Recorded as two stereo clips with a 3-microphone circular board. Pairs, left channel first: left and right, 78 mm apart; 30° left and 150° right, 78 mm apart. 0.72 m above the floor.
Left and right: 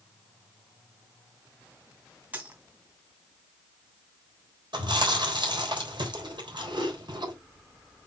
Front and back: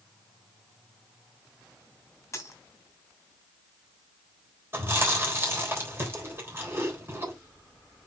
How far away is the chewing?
About 3.5 m.